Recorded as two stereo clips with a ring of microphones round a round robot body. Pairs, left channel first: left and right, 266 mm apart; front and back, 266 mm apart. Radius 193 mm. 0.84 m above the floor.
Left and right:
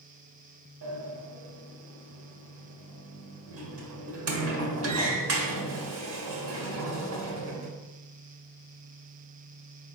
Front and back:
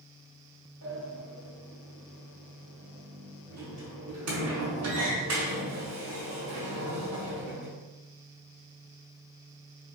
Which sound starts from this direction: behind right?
A sliding door, at 0.8 s.